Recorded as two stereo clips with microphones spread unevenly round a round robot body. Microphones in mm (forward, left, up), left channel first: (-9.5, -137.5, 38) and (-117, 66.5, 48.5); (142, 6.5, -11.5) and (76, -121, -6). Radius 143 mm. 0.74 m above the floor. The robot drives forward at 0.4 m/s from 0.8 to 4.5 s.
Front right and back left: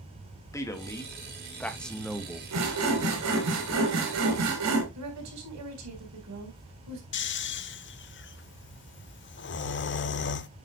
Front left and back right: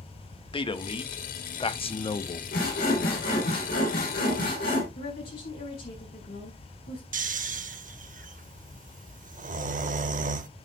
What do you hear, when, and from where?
0.5 s a man speaking: 15° left, 1.3 m; by 2.4 s 30° left, 0.8 m
2.5 s sawing: 95° left, 3.5 m; by 4.8 s 110° left, 4 m
5.0 s a woman speaking: 110° left, 4.5 m
7.1 s snoring: 100° right, 0.7 m